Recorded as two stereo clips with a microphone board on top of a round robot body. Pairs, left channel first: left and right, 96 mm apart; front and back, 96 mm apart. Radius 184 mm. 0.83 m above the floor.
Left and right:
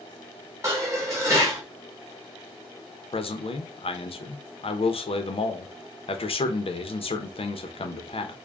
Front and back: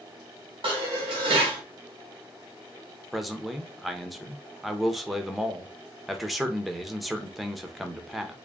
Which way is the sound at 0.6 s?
150° right.